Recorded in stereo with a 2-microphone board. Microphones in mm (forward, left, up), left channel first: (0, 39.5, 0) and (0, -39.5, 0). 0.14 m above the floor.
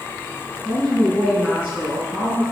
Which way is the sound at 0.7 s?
15° right (ahead or behind).